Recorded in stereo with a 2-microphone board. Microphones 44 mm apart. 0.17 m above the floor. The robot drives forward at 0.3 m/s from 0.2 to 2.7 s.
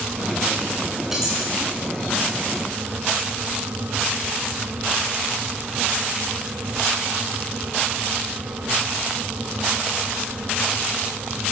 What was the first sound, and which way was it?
Cutlery clinking, 10° right (ahead or behind).